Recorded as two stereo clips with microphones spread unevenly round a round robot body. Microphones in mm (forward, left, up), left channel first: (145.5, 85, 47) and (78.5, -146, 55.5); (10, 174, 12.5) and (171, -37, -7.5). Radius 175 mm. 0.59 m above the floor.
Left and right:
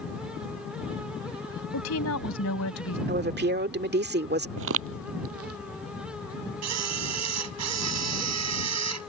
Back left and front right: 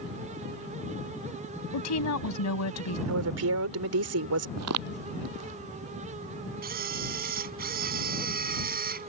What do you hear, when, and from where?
1.7 s a woman speaking: 115° left
3.1 s a woman speaking: 65° right
4.6 s footsteps: 85° right; by 5.6 s 95° right
6.6 s a camera shutter: 120° right